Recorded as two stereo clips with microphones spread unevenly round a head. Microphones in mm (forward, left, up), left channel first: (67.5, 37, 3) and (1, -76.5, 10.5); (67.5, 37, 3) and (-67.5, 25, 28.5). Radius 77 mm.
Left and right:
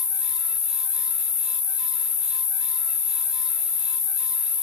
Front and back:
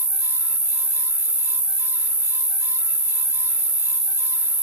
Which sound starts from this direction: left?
An insect, at 0.0 s.